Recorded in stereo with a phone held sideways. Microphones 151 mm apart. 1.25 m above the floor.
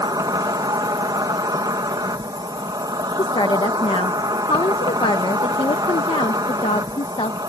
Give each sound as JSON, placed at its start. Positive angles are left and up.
{"t": 0.0, "sound": "an insect", "side_deg": -30}
{"t": 3.2, "sound": "a woman speaking", "side_deg": 40}